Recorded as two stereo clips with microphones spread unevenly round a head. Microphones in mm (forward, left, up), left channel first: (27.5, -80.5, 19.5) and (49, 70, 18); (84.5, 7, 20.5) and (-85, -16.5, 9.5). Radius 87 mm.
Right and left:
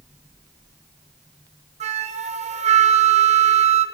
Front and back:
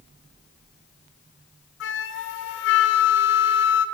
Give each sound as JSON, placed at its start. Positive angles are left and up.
{"t": 1.8, "sound": "a flute", "azimuth_deg": 35, "distance_m": 0.7}